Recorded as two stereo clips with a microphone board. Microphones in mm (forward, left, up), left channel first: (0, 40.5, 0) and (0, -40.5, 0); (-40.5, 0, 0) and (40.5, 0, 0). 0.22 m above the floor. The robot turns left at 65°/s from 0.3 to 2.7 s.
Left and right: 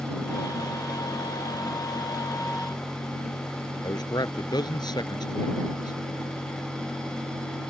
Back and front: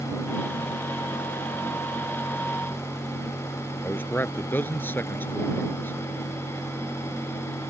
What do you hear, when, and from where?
3.8 s a man speaking: 115° left